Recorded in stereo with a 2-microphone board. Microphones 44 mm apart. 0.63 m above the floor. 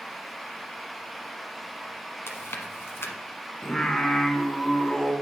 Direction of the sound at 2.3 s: 70° left (ahead or behind).